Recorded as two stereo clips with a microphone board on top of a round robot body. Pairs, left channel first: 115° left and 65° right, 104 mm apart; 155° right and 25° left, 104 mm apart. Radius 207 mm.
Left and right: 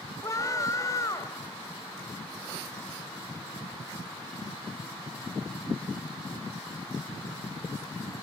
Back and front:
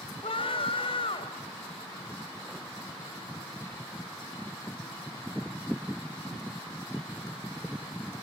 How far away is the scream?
About 3 m.